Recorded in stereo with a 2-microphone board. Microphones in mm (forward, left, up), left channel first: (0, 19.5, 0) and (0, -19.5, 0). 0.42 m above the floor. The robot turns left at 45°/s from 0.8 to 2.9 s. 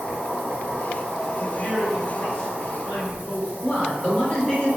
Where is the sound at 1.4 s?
140° left, 1.8 m; by 3.5 s 70° left, 1.8 m.